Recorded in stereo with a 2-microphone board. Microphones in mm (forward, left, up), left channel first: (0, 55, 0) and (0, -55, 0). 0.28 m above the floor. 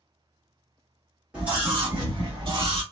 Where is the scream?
10° right (ahead or behind), 1.6 m; by 2.8 s 45° right (ahead or behind), 2 m.